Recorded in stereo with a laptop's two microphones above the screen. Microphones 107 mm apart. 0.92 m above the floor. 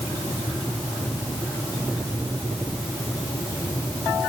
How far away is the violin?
No violin in this recording.